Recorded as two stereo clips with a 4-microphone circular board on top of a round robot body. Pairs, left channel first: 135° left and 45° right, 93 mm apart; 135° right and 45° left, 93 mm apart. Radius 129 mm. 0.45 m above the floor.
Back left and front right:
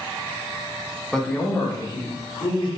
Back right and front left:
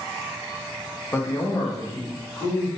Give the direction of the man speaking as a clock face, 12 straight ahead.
4 o'clock.